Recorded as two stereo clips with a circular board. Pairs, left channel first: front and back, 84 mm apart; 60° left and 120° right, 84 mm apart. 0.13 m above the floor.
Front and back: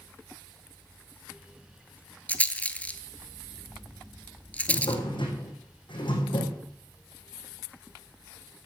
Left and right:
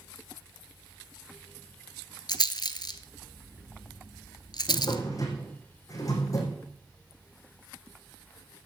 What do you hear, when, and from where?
2.3 s a rattle: 70° left, 0.9 m
4.7 s a drawer: 15° left, 4.5 m